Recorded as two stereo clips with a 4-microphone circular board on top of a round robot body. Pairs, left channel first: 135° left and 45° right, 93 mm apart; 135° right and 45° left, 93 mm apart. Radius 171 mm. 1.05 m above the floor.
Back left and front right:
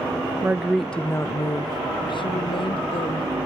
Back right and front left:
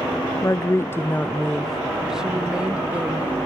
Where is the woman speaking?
105° right, 0.6 m; by 3.3 s 120° left, 1.3 m.